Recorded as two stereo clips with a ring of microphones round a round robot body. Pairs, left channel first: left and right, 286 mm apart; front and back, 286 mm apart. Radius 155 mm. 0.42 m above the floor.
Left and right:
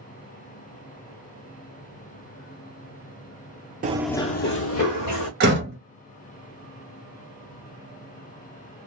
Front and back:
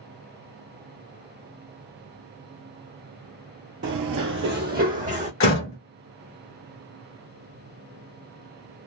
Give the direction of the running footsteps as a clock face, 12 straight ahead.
5 o'clock.